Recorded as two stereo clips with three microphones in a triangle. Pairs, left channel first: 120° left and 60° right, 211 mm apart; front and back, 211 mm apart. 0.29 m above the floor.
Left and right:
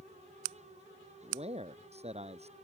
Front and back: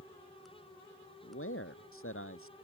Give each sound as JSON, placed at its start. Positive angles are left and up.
{"t": 1.2, "sound": "a man speaking", "azimuth_deg": 0}